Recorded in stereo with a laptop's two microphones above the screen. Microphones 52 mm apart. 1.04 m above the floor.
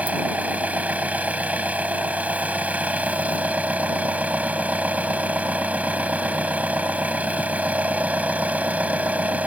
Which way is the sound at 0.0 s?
30° right (ahead or behind).